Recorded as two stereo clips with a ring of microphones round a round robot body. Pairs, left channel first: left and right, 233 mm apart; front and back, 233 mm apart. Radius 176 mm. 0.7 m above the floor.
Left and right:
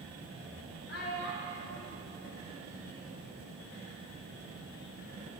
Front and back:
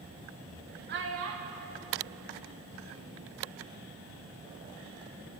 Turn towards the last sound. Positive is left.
turn(degrees=-120)